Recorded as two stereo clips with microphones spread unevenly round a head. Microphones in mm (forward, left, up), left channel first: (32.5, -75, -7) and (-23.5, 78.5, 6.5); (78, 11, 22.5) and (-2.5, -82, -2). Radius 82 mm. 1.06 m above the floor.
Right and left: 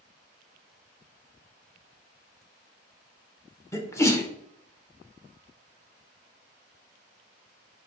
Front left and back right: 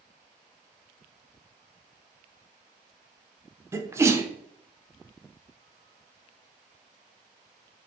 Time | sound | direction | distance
3.7 | a sneeze | 120° right | 0.8 m